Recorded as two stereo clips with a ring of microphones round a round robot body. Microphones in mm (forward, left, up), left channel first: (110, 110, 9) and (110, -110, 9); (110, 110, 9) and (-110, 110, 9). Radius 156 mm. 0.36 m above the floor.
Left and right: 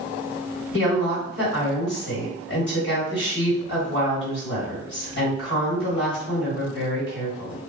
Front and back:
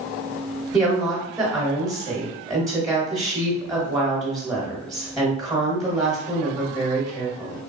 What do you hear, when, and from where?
0.7 s a woman speaking: 110° left, 1.7 m